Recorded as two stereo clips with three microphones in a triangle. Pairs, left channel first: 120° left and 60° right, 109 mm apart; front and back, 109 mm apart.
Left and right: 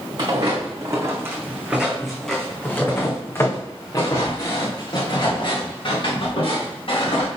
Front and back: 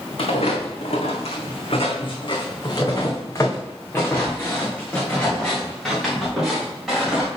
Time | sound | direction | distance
0.2 | footsteps | 15° right | 1.9 m